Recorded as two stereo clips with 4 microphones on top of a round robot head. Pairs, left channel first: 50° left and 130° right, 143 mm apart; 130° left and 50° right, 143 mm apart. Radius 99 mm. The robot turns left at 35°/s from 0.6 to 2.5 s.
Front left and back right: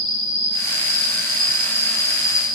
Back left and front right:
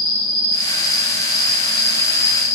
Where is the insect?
15° left, 9 m; by 2.6 s 50° right, 9 m.